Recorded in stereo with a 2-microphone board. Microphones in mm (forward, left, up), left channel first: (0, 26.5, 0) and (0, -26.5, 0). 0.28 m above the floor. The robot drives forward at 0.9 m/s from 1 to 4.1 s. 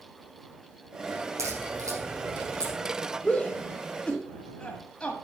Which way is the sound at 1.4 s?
75° right (ahead or behind).